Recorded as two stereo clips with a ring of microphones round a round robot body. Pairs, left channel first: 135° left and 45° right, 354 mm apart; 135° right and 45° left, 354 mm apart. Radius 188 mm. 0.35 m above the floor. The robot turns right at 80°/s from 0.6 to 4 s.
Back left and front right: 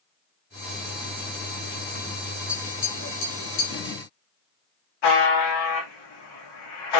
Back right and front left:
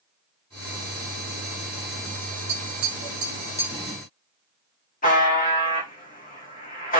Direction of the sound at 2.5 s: 40° left.